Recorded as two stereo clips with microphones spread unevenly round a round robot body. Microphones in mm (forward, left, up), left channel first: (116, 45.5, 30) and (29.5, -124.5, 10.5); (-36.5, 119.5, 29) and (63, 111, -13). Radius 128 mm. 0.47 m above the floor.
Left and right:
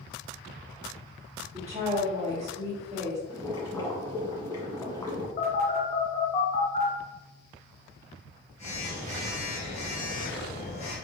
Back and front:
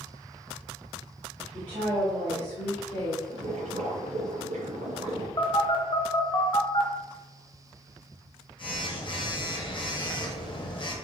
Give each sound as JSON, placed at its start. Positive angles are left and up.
{"t": 1.5, "sound": "a woman speaking", "azimuth_deg": -55, "distance_m": 1.5}
{"t": 3.3, "sound": "boiling", "azimuth_deg": -10, "distance_m": 1.5}
{"t": 5.4, "sound": "a phone buzzing", "azimuth_deg": 130, "distance_m": 1.0}